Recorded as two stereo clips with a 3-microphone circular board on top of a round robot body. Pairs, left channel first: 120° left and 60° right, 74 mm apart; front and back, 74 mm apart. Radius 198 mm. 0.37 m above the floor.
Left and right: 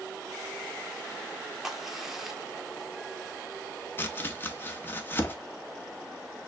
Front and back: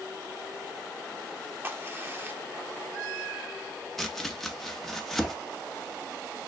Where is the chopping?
85° left, 1.0 m.